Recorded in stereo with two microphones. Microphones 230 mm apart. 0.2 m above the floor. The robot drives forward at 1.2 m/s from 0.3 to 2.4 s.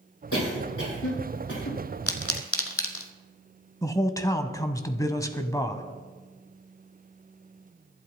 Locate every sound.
0.3 s a cough: 80° left, 7.5 m
2.1 s a pop: 85° left, 1.4 m; by 3.1 s 70° left (ahead or behind), 1.5 m
3.8 s a man speaking: 15° left (ahead or behind), 1.0 m